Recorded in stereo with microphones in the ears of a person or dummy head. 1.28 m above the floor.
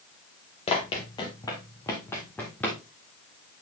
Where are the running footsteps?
25° left (ahead or behind), 1.7 m; by 2.8 s 5° left (ahead or behind), 2.5 m.